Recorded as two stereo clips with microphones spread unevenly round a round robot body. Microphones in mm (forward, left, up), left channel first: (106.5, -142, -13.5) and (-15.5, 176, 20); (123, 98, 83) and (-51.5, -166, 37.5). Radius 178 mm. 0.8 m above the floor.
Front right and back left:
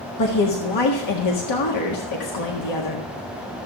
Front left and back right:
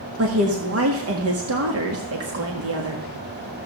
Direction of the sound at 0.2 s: 90° right.